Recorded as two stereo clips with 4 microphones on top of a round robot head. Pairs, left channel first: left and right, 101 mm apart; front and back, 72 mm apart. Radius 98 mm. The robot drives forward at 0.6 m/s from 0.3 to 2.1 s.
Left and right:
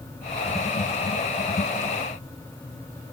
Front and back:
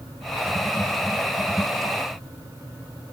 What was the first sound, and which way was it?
Only background noise.